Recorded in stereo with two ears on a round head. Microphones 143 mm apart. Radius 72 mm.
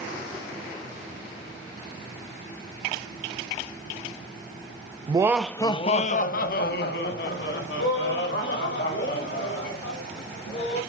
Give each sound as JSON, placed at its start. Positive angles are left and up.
{"t": 5.1, "sound": "laughter", "side_deg": -30, "distance_m": 0.8}